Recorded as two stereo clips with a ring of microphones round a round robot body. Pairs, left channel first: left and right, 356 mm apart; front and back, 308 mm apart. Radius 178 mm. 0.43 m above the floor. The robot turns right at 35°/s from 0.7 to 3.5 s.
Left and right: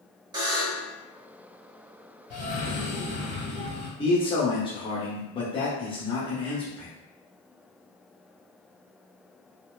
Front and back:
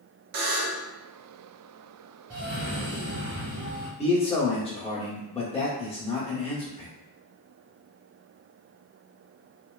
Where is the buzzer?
170° right, 0.6 m; by 0.9 s 160° right, 0.6 m.